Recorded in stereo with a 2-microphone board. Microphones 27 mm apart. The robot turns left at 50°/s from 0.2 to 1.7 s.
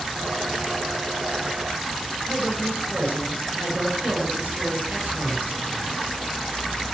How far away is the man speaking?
About 6.5 m.